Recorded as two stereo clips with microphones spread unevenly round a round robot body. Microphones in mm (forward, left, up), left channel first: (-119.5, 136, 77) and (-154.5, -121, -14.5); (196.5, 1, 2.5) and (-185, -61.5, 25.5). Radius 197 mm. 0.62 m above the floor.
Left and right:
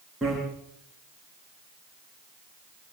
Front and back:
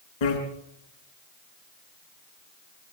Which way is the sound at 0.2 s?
10° right.